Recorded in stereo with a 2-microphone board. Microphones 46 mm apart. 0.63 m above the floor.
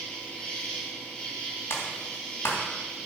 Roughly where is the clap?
Left.